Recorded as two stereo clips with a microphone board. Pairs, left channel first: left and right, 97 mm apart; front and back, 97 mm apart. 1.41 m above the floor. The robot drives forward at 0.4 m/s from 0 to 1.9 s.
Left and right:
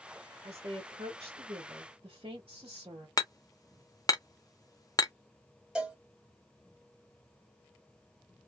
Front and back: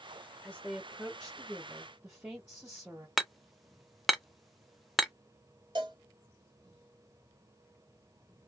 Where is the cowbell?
170° right, 1.3 m.